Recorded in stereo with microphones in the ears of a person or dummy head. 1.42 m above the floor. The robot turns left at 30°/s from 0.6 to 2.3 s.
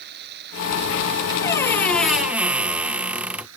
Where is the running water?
60° right; by 3.6 s 110° right.